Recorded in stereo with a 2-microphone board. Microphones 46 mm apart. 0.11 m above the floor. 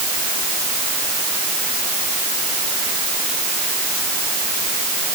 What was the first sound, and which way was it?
Only background noise.